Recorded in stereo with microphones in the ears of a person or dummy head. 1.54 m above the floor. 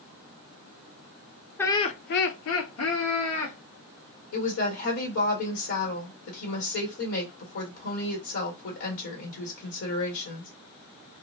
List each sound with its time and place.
1.6 s laughter: 10° left (ahead or behind), 0.5 m; by 3.6 s 75° left (ahead or behind), 1.3 m
4.3 s a woman speaking: 80° left, 1.5 m